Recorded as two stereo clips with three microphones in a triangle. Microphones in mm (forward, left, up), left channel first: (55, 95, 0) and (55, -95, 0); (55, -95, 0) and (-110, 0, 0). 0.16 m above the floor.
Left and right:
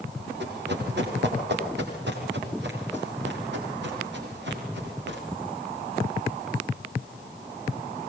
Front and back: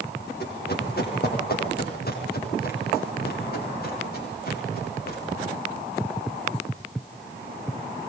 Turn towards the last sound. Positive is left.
turn(degrees=-65)